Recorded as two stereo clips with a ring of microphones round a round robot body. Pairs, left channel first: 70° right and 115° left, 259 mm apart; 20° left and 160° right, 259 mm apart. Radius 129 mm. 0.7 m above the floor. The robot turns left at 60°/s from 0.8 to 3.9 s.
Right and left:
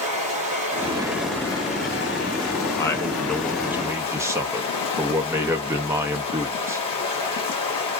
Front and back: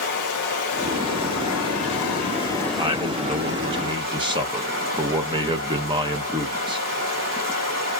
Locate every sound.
0.0 s running water: 50° left, 1.4 m; by 8.0 s 135° right, 1.4 m
2.8 s a man speaking: 120° right, 0.5 m; by 6.9 s 170° left, 0.5 m